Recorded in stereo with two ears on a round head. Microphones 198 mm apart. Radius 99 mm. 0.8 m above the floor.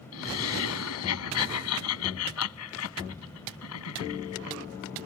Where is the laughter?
75° left (ahead or behind).